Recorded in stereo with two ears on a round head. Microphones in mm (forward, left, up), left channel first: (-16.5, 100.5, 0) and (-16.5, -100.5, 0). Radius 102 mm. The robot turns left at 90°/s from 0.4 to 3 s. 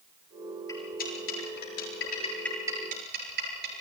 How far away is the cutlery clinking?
About 8.5 m.